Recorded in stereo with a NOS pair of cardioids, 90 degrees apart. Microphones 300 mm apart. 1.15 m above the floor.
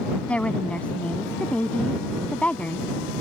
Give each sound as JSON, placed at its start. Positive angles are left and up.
{"t": 0.3, "sound": "a woman speaking", "azimuth_deg": 5}